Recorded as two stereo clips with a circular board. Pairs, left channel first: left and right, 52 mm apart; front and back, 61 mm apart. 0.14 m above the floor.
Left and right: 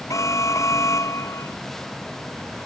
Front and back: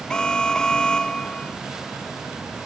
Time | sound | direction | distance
0.1 | an alarm | 75° left | ?